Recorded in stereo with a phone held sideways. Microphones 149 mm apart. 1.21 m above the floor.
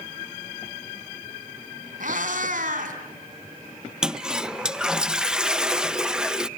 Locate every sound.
2.0 s a cat meowing: 65° right (ahead or behind), 3 m
4.0 s a toilet flushing: 5° right (ahead or behind), 0.5 m